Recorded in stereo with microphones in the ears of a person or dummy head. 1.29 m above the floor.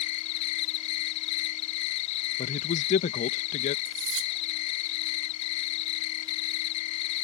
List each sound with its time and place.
0.0 s an insect: 30° left (ahead or behind)
2.4 s a man speaking: 45° left (ahead or behind)
3.9 s cutlery clinking: 70° right (ahead or behind)